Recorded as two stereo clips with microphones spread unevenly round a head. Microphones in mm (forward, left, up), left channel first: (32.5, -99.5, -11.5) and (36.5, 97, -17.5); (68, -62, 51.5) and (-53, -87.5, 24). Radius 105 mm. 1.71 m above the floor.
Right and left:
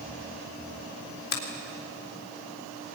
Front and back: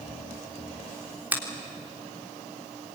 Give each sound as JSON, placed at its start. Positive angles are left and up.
{"t": 1.3, "sound": "a finger snap", "azimuth_deg": -90, "distance_m": 3.5}